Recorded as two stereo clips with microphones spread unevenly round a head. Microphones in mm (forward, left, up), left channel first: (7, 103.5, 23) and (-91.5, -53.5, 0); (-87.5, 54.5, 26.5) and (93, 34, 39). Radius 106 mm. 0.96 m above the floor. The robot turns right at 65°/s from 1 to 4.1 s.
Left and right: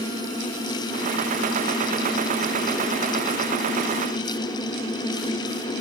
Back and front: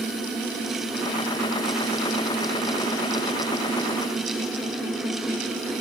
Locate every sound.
Only background noise.